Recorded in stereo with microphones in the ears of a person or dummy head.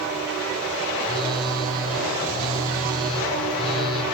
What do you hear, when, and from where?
1.0 s a phone buzzing: 25° right (ahead or behind), 8 m